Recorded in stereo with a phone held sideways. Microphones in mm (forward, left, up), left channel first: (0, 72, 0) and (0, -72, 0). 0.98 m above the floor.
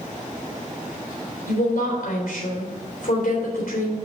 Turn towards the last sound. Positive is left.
turn(degrees=75)  # may be behind; listen again after turning